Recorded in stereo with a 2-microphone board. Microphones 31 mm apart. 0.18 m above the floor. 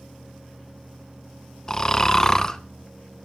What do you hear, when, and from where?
1.7 s snoring: 20° left (ahead or behind), 1.0 m